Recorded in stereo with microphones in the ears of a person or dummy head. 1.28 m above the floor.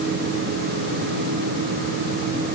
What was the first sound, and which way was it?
Only background noise.